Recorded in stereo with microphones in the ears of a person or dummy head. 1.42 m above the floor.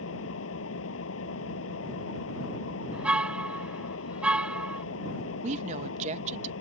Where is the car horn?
5° right (ahead or behind).